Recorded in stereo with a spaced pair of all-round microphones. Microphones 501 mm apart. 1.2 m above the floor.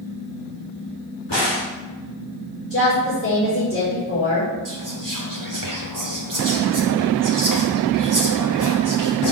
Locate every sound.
1.3 s a crack: 55° left (ahead or behind), 3.5 m
2.7 s a woman speaking: 30° left (ahead or behind), 5 m
4.7 s whispering: 40° right (ahead or behind), 0.9 m